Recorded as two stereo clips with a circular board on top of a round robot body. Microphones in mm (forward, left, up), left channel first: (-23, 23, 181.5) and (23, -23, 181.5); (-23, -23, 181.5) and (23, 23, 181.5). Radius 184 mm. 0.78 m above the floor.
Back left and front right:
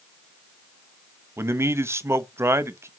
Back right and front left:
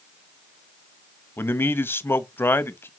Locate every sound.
1.4 s a man speaking: 90° right, 1.1 m